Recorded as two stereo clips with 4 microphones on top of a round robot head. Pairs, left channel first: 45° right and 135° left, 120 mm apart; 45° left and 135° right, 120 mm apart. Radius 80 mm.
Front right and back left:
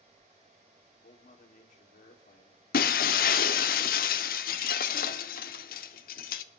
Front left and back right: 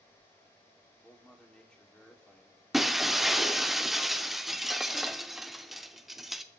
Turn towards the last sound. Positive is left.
turn(degrees=-45)